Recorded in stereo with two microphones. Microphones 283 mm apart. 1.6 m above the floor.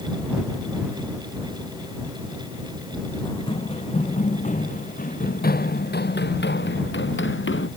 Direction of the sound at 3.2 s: 15° left (ahead or behind).